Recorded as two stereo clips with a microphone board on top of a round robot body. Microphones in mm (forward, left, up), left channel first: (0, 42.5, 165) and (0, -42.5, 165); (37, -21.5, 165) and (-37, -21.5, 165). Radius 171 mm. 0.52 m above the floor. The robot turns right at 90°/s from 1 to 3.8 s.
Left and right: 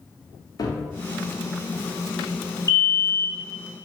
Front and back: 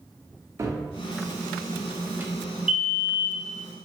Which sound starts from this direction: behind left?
A cupboard door, at 0.6 s.